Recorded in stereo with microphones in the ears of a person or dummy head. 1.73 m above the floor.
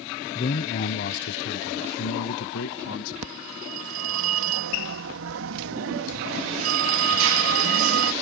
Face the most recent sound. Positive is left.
turn(degrees=-75)  # may be behind; listen again after turning